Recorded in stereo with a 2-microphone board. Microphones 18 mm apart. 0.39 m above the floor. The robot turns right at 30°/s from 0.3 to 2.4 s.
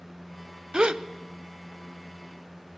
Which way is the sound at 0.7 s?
70° right (ahead or behind).